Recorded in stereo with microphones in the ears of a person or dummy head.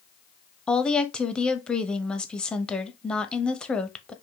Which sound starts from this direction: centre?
A woman speaking, at 0.7 s.